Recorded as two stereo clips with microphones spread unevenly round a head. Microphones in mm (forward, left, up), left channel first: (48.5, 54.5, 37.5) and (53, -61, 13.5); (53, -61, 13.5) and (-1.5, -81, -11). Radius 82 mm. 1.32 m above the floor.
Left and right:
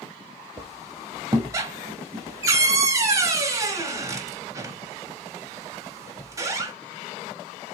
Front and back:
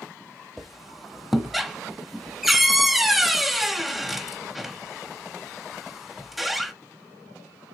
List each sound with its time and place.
0.6 s a squeak: 25° right, 1.2 m